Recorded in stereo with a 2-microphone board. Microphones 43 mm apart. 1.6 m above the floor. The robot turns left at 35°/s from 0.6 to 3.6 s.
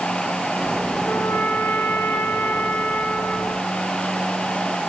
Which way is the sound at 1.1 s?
120° left.